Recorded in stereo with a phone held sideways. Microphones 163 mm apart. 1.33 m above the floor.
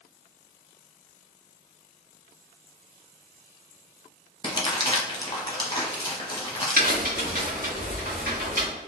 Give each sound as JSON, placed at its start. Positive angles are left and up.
{"t": 4.4, "sound": "crumpling", "side_deg": 25, "distance_m": 0.7}
{"t": 6.8, "sound": "a crack", "side_deg": -60, "distance_m": 1.2}